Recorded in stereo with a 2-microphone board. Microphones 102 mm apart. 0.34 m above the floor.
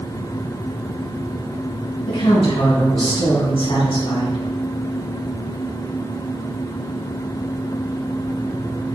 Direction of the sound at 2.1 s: 60° left (ahead or behind).